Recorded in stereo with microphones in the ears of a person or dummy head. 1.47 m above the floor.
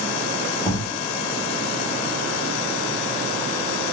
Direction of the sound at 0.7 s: 25° left (ahead or behind).